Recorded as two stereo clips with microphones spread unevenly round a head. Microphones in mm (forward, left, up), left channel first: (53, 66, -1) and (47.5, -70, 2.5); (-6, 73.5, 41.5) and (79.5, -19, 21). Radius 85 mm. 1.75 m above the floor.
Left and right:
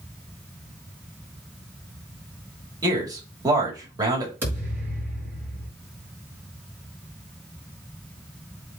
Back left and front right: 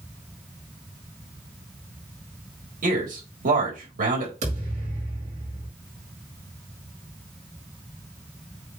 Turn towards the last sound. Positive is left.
turn(degrees=-20)